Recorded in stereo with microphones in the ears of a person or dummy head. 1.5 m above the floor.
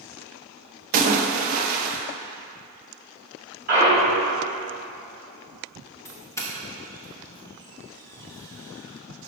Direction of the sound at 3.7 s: 45° right (ahead or behind).